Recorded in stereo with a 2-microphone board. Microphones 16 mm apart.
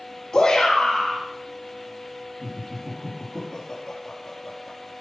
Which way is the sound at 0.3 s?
65° left (ahead or behind).